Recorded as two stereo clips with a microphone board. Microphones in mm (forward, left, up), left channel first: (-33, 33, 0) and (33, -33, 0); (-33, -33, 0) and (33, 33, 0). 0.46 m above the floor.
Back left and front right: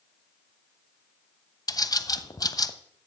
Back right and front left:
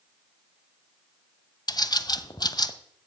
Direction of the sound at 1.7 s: Straight behind.